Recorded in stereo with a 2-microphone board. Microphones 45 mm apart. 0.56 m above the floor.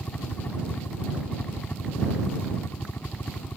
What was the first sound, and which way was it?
A helicopter, 45° left (ahead or behind).